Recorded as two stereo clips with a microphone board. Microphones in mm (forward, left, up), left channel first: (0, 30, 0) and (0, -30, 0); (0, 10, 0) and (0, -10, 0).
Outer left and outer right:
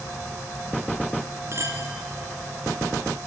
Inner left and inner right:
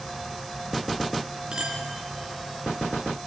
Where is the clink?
45° right (ahead or behind), 3 m.